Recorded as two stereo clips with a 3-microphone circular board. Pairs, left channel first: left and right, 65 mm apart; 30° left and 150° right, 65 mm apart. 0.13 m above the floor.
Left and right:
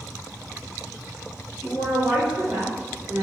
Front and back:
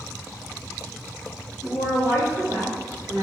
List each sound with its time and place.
1.6 s a woman speaking: 145° right, 2.0 m